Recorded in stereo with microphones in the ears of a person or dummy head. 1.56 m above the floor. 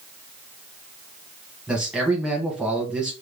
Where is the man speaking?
5° right (ahead or behind), 1.2 m.